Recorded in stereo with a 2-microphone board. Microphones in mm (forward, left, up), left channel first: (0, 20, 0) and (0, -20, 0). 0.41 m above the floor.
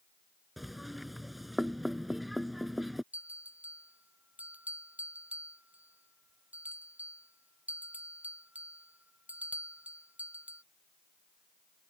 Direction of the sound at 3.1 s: 45° right (ahead or behind).